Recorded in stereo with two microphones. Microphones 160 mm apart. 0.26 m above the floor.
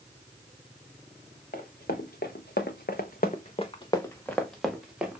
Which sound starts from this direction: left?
Running footsteps, at 1.5 s.